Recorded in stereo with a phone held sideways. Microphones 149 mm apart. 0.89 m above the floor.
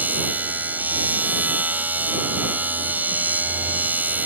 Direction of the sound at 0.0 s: 10° right (ahead or behind).